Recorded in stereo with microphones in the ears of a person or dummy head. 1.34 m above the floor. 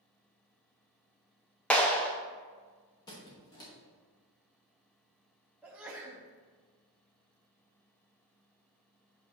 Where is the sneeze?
10° right (ahead or behind), 0.7 m.